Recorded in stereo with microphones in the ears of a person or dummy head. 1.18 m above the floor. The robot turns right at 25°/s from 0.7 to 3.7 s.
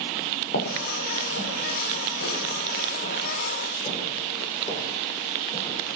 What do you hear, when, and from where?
0.5 s footsteps: 65° left (ahead or behind), 5.5 m; by 6.0 s 20° left (ahead or behind), 7.5 m